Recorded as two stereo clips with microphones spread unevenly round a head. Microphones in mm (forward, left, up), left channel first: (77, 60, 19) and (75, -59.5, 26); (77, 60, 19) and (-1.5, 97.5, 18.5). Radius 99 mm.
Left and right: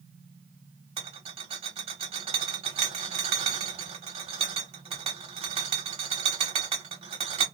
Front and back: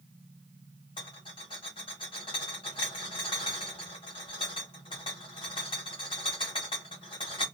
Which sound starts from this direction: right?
A rattle, at 1.0 s.